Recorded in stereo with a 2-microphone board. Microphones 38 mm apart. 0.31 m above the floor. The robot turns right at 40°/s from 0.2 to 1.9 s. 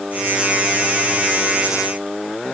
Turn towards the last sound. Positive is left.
No sound to turn to.